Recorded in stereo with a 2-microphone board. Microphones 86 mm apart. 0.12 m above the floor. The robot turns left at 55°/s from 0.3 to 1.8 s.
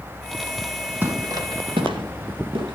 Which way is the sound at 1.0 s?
20° right (ahead or behind).